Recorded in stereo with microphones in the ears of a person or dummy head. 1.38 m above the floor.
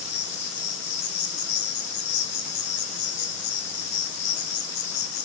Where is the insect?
55° left (ahead or behind), 0.8 m.